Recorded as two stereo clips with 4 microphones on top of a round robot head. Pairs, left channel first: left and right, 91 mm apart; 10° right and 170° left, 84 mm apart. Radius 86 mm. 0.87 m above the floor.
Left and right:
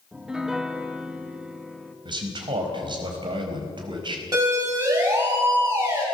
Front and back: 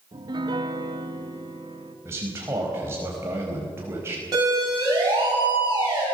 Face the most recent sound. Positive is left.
turn(degrees=-145)